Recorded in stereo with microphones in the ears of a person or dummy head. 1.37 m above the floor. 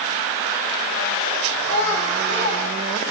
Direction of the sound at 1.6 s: 25° left (ahead or behind).